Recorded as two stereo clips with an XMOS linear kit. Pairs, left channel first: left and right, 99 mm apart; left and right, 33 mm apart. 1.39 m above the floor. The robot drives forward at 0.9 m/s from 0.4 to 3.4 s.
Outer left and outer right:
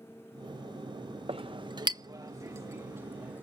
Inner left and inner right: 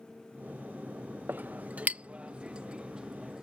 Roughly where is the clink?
Right.